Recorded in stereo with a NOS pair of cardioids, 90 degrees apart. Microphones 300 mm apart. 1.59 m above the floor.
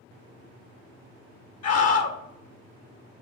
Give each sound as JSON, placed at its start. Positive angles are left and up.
{"t": 1.6, "sound": "a scream", "azimuth_deg": 60, "distance_m": 1.8}